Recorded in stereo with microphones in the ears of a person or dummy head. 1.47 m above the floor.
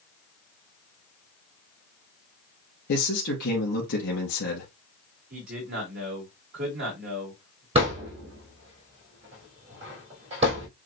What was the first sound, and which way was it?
A man speaking, 70° left (ahead or behind).